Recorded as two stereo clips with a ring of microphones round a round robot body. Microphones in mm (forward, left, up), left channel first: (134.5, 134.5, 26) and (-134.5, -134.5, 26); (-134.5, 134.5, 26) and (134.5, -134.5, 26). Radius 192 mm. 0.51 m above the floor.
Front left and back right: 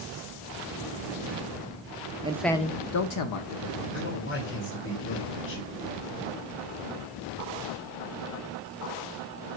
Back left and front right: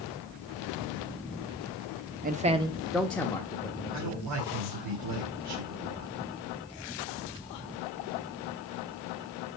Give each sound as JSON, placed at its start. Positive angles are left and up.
{"t": 2.2, "sound": "a man speaking", "azimuth_deg": -80, "distance_m": 0.7}
{"t": 3.9, "sound": "a man speaking", "azimuth_deg": -10, "distance_m": 2.0}